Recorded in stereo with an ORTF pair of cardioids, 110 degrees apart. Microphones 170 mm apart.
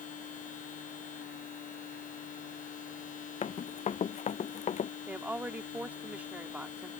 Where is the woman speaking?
10° right.